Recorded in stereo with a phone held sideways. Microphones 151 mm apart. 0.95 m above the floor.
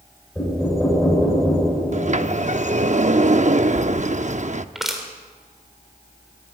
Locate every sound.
0.3 s knocking: 5° left (ahead or behind), 10 m
1.9 s a sliding door: 50° right (ahead or behind), 0.7 m
4.8 s crushing: centre (ahead or behind), 3.5 m